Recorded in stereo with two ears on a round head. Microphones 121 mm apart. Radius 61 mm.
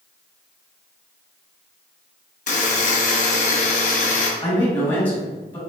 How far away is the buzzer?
About 0.9 m.